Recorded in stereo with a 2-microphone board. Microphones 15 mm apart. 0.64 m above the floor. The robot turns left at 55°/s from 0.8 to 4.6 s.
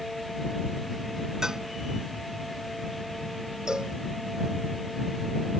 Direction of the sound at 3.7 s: 60° right (ahead or behind).